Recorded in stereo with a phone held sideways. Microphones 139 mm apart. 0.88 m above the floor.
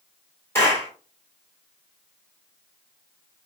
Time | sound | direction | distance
0.6 | a clap | 20° left (ahead or behind) | 2.5 m